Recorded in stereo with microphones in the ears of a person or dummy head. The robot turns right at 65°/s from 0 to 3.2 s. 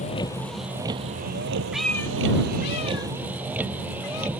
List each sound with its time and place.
0.0 s a vehicle: 145° left; by 4.4 s 10° right
1.7 s a cat meowing: 5° right (ahead or behind); by 4.3 s 75° left (ahead or behind)